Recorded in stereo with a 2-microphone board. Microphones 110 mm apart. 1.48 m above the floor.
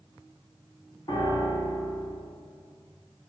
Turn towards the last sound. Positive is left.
turn(degrees=40)  # may be behind; listen again after turning